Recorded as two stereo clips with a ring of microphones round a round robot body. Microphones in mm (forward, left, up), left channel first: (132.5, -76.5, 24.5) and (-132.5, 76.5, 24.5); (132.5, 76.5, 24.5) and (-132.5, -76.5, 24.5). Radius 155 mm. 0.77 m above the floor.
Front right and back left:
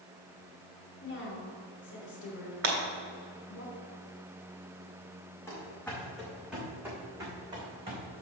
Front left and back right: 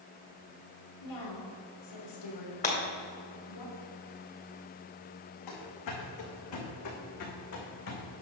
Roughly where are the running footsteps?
Ahead left.